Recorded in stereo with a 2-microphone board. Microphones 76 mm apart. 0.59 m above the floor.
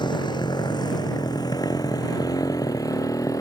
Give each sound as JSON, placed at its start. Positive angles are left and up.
{"t": 0.0, "sound": "a motorcycle", "side_deg": 75}